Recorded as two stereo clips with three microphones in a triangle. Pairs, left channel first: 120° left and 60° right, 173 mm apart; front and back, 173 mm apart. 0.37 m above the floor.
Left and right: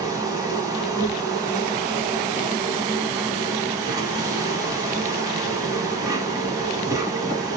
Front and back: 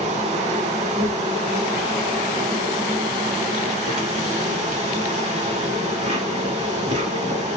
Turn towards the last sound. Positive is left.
turn(degrees=-125)